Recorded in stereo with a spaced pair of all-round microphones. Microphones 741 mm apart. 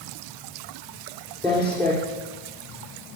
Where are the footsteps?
10° right (ahead or behind), 4 m.